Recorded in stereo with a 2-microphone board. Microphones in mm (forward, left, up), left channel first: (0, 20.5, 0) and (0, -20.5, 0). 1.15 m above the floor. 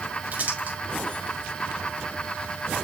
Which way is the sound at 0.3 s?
45° right (ahead or behind).